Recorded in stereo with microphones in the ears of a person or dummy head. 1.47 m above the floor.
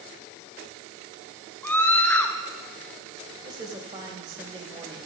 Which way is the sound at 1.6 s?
5° left (ahead or behind).